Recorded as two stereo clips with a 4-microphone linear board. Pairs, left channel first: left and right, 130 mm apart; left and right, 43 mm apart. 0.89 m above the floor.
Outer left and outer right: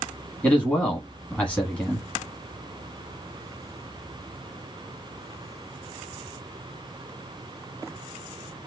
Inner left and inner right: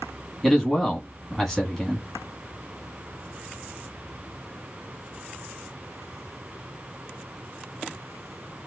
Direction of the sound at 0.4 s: 10° left (ahead or behind).